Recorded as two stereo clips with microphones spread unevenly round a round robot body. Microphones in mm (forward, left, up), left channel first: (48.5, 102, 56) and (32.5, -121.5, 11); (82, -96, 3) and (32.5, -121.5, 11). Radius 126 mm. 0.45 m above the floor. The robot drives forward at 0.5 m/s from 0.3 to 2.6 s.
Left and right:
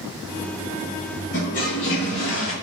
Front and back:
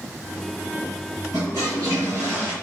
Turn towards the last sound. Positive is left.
turn(degrees=150)